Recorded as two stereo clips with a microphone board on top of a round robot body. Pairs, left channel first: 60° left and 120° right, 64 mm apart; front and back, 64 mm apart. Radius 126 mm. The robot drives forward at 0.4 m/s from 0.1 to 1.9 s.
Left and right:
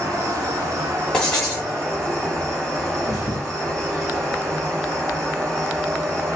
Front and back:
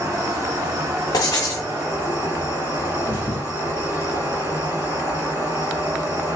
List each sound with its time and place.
0.0 s an insect: 150° right, 1.4 m; by 6.4 s 160° right, 2 m
1.1 s writing: 25° right, 0.8 m; by 1.7 s 35° right, 0.6 m
3.0 s a thud: 135° right, 1.4 m